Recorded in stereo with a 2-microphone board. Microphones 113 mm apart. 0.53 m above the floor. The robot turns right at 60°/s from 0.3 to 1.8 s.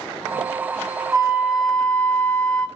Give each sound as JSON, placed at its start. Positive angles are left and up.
{"t": 1.1, "sound": "a flute", "azimuth_deg": -30, "distance_m": 0.6}